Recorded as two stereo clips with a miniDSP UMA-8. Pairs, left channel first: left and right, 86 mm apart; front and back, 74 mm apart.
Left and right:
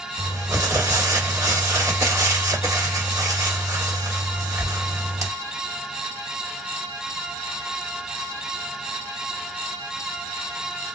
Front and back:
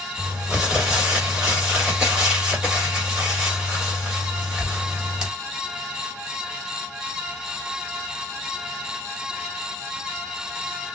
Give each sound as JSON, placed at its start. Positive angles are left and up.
{"t": 0.2, "sound": "crumpling", "azimuth_deg": -110, "distance_m": 1.6}